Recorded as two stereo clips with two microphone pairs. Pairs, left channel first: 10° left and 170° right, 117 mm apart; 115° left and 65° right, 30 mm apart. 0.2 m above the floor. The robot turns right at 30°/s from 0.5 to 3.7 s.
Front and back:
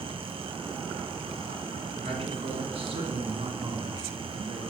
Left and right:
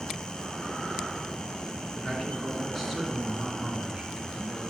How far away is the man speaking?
About 2.5 m.